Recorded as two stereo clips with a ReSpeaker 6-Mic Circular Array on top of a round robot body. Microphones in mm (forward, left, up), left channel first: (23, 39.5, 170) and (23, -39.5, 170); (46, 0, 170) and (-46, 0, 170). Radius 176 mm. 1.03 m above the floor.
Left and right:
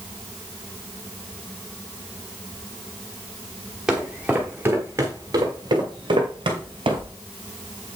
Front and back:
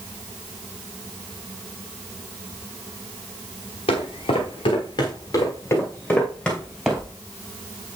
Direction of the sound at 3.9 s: 5° right.